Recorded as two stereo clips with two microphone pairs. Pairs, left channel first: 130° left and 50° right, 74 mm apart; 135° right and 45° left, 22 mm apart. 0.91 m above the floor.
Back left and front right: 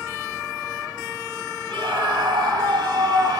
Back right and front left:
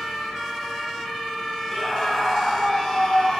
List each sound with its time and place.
1.7 s a scream: 55° right, 6 m; by 3.4 s 75° right, 6.5 m